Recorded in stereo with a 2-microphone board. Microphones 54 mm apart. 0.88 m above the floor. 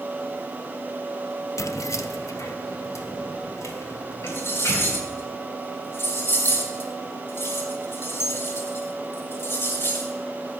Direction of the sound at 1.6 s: 65° left (ahead or behind).